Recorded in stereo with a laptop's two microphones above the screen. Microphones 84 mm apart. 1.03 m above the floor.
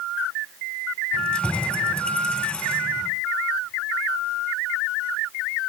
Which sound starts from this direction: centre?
Keys jangling, at 1.1 s.